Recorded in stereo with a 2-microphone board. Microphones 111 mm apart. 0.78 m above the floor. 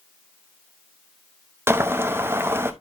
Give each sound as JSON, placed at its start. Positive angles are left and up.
{"t": 1.7, "sound": "boiling", "side_deg": -20, "distance_m": 0.8}